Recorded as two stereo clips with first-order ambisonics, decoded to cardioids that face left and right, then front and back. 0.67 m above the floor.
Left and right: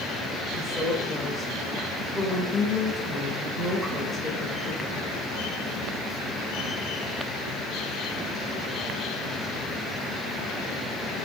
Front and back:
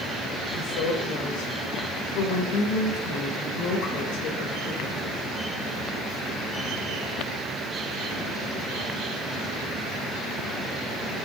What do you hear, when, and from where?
0.5 s a woman speaking: straight ahead, 2 m